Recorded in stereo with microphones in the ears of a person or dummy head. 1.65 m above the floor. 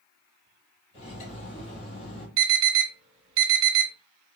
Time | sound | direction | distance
0.9 | cutlery clinking | 40° left (ahead or behind) | 1.1 m
2.4 | an alarm | 15° right (ahead or behind) | 1.5 m